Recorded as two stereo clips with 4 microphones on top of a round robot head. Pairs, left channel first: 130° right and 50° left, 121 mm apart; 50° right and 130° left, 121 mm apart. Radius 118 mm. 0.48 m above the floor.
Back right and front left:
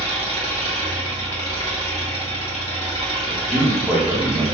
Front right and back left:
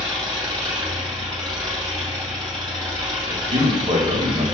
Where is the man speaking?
130° left, 1.1 m.